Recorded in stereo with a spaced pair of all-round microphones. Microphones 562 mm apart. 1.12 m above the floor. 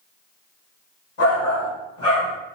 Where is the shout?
65° left (ahead or behind), 1.3 m.